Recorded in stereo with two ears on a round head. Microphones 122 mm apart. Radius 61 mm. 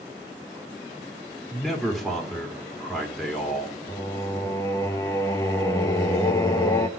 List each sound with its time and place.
1.5 s a man speaking: centre (ahead or behind), 2.5 m
3.9 s singing: 20° left (ahead or behind), 1.0 m